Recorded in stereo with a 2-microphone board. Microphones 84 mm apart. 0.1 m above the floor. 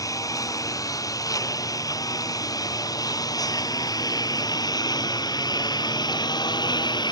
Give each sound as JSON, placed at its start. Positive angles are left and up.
{"t": 0.0, "sound": "a lawn mower", "side_deg": 45}